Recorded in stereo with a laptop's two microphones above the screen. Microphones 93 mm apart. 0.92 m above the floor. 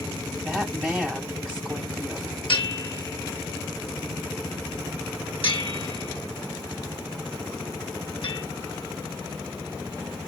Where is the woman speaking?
5° left (ahead or behind), 5.5 m.